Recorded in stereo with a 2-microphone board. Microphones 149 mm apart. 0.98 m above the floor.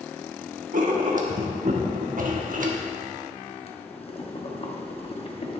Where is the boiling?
40° left (ahead or behind), 0.9 m.